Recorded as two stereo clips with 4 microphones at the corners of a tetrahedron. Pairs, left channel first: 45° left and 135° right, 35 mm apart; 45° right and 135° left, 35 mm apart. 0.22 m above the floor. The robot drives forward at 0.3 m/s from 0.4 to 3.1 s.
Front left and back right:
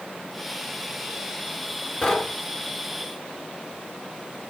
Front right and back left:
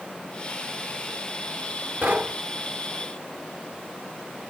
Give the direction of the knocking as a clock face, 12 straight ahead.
8 o'clock.